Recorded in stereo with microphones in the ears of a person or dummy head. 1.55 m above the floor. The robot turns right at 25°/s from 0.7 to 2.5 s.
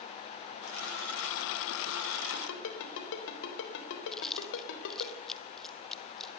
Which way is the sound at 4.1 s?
Centre (ahead or behind).